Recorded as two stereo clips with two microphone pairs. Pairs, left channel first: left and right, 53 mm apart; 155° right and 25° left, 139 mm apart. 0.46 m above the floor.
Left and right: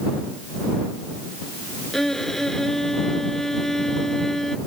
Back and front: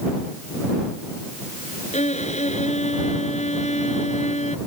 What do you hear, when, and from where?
1.9 s a violin: 175° left